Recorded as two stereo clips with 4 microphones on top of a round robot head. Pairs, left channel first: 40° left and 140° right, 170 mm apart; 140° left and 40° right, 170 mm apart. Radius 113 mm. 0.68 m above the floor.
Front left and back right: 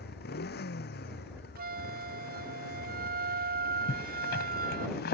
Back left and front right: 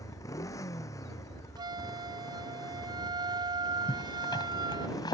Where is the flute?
105° right.